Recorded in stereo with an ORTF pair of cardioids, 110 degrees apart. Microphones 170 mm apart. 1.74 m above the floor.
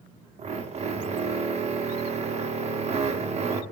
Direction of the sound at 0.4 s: 40° right.